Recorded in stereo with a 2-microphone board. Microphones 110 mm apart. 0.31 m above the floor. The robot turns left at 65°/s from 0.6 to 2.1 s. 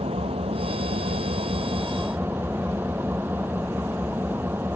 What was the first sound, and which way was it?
An engine running, 65° right.